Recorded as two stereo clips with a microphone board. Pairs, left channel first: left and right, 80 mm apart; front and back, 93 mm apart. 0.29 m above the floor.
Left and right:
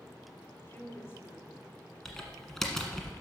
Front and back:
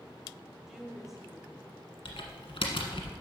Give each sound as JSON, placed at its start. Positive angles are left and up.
{"t": 0.7, "sound": "a woman speaking", "azimuth_deg": 95, "distance_m": 1.4}
{"t": 2.0, "sound": "typing on a keyboard", "azimuth_deg": 5, "distance_m": 1.3}